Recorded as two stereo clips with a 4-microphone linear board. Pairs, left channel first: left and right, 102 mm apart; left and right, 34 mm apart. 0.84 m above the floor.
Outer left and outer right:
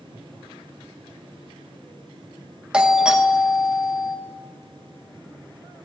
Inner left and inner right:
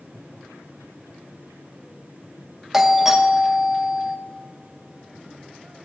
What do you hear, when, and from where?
2.7 s a doorbell: 10° right (ahead or behind), 0.9 m